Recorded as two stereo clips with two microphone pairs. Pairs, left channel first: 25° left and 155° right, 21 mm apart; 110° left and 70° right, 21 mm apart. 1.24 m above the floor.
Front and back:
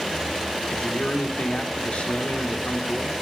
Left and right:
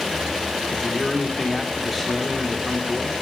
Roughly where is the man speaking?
Ahead left.